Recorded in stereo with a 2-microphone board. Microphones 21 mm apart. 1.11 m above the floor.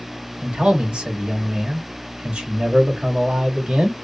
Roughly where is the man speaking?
Right.